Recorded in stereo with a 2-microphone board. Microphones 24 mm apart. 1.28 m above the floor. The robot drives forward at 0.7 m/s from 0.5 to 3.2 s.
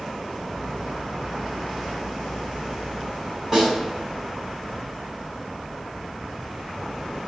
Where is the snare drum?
10° right (ahead or behind), 7.5 m.